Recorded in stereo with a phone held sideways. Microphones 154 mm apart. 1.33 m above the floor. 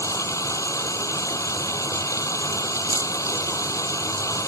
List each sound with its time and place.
0.0 s running water: 20° left (ahead or behind)